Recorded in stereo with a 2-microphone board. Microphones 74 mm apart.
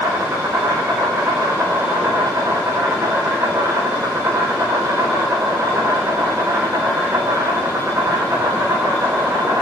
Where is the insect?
40° right (ahead or behind), 4 m.